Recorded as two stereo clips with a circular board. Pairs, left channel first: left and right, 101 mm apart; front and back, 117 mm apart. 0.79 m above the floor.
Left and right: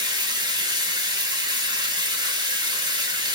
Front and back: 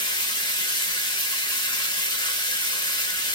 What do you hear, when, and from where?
0.0 s running water: 45° right, 0.9 m